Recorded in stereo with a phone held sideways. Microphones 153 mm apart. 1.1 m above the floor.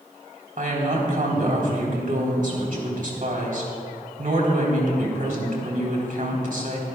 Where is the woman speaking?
65° right (ahead or behind), 3.5 m.